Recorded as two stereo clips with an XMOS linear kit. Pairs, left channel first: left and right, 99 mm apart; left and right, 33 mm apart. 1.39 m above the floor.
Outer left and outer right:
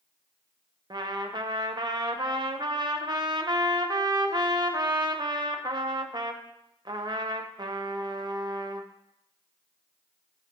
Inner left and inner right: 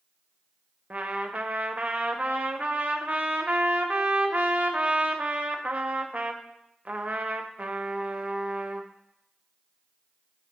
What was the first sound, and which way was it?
A trumpet, 45° right (ahead or behind).